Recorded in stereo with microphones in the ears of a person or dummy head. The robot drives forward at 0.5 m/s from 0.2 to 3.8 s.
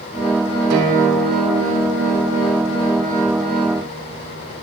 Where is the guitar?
85° right, 3.5 m; by 4.6 s 70° right (ahead or behind), 4 m.